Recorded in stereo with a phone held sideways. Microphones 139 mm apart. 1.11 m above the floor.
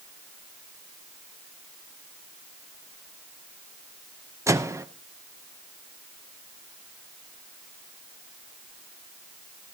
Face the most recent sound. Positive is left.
turn(degrees=-20)  # may be behind; listen again after turning